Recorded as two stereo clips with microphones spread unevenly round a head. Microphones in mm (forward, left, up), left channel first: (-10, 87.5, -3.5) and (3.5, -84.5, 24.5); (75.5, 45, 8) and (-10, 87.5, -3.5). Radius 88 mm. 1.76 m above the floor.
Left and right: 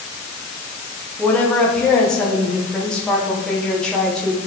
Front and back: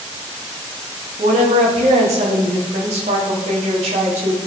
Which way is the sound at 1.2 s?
Straight behind.